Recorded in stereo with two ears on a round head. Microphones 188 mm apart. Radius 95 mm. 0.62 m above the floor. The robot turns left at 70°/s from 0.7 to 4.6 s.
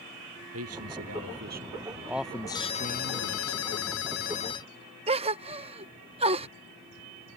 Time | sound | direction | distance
0.5 | a man speaking | 70° right | ?
2.5 | a ringtone | 160° left | ?
5.1 | a gasp | 30° right (ahead or behind) | ?